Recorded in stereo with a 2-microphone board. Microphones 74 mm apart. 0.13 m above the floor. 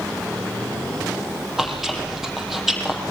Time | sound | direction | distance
1.6 | chewing | 5° right (ahead or behind) | 4 m